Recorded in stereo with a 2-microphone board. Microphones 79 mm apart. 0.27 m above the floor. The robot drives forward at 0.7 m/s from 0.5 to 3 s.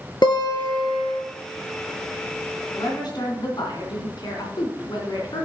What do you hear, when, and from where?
0.2 s a guitar: 75° left (ahead or behind), 1.6 m; by 1.2 s 85° left, 1.5 m
2.7 s a woman speaking: 65° left (ahead or behind), 3 m